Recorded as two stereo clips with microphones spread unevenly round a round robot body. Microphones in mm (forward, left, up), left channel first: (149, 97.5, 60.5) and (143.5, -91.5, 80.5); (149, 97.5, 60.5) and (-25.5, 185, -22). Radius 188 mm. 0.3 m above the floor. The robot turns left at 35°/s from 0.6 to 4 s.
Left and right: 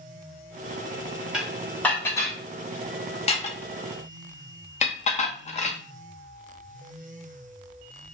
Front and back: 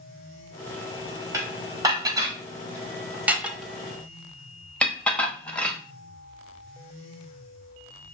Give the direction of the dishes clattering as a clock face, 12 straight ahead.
6 o'clock.